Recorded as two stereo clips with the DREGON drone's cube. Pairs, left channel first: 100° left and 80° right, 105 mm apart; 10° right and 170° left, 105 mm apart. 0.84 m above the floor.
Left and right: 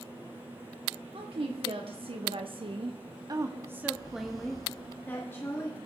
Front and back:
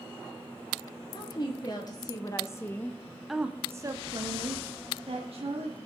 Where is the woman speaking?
55° right, 2 m; by 5.8 s 160° left, 1.9 m.